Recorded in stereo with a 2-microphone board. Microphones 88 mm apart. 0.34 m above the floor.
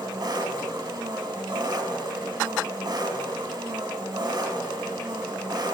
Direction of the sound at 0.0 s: 55° right (ahead or behind).